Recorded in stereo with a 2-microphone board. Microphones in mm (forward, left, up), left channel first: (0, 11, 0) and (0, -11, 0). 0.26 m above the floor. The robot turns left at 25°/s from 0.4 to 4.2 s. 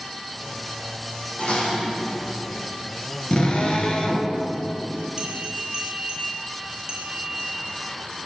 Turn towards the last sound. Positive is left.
turn(degrees=-35)  # may be behind; listen again after turning